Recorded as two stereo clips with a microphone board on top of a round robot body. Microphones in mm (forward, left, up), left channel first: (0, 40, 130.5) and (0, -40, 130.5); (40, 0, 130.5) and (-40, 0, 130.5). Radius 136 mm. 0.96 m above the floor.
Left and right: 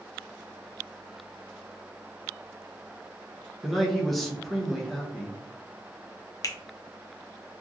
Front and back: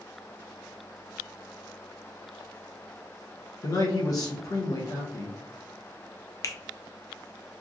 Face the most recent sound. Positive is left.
turn(degrees=45)